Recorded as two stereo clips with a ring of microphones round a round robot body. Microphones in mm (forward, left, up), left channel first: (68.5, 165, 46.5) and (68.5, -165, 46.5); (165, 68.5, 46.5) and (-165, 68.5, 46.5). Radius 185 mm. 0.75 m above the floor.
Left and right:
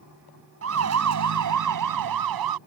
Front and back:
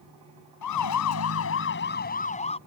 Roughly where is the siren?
Ahead right.